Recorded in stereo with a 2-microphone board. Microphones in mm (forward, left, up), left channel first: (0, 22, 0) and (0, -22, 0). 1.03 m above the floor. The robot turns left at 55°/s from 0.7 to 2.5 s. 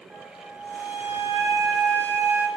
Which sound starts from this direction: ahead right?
A flute, at 0.1 s.